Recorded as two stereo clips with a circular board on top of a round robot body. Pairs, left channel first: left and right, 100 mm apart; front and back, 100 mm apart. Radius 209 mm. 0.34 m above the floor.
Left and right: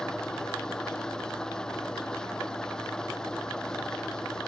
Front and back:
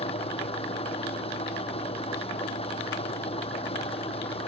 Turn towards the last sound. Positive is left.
turn(degrees=5)